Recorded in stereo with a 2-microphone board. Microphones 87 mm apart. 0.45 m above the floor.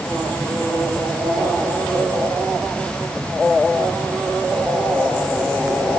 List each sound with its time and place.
Only background noise.